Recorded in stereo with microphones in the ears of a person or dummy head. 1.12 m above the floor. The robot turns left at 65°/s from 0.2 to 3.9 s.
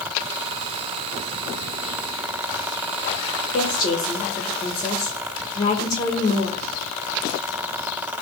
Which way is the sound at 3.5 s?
40° left (ahead or behind).